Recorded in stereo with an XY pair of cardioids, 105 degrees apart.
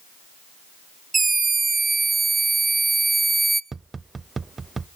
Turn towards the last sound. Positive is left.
turn(degrees=-30)